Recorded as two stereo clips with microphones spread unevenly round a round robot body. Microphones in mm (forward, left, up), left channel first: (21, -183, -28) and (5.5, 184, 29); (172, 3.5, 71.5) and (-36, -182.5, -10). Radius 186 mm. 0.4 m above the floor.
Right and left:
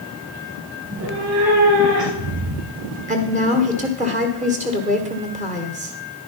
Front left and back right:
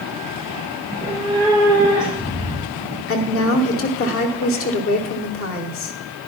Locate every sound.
0.8 s a cat meowing: 150° left, 1.5 m; by 3.0 s 125° left, 3.5 m
3.1 s a woman speaking: 25° left, 1.1 m